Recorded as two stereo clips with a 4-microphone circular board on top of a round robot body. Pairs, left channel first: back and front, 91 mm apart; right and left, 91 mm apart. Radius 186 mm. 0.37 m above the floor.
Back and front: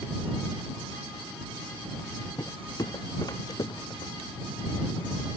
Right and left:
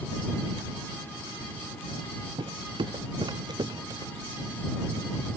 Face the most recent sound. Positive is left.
turn(degrees=140)